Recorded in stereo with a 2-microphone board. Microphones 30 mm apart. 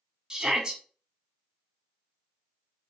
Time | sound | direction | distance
0.3 | a shout | 25° right (ahead or behind) | 1.1 m